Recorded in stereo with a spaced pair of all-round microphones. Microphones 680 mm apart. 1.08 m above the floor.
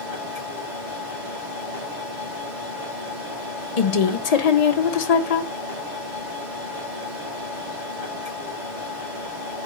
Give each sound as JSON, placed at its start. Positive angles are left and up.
{"t": 0.0, "sound": "a machine running", "side_deg": -85, "distance_m": 2.5}
{"t": 3.8, "sound": "a woman speaking", "side_deg": 60, "distance_m": 0.7}